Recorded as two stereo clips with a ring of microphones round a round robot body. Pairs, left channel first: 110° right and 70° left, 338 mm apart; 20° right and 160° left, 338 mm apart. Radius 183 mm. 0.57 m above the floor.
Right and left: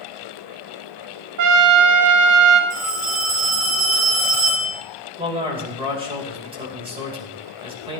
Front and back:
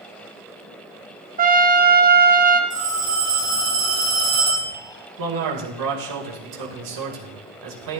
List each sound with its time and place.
1.4 s a trumpet: 95° left, 1.1 m
2.7 s a phone ringing: 80° left, 5.5 m
5.2 s a man speaking: 140° left, 3 m